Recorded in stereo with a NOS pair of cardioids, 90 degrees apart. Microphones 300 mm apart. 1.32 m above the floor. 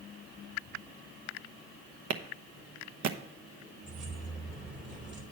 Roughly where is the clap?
Ahead right.